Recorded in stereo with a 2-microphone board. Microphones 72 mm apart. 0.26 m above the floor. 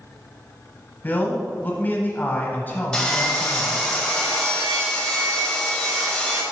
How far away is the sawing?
About 1.4 m.